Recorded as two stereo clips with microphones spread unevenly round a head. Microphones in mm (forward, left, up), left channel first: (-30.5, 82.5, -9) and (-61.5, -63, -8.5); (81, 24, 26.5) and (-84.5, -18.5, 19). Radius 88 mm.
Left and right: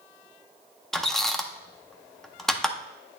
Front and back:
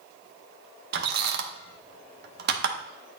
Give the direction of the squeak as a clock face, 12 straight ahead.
6 o'clock.